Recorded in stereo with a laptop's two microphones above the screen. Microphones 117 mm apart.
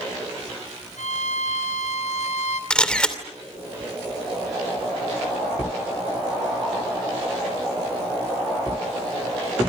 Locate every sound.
1.0 s a violin: 85° left, 4.5 m
2.7 s a camera shutter: 10° left (ahead or behind), 2.5 m